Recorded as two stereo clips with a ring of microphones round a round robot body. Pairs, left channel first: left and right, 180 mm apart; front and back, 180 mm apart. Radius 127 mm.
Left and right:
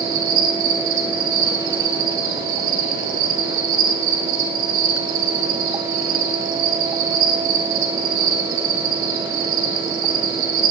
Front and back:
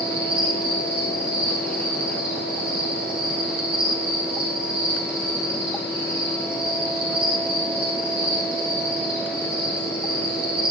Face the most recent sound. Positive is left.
turn(degrees=-95)